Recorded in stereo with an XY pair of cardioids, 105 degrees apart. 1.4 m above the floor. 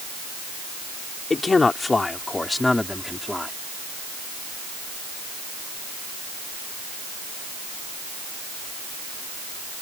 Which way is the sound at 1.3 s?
30° left.